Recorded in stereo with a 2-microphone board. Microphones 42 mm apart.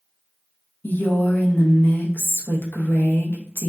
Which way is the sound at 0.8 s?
55° left (ahead or behind).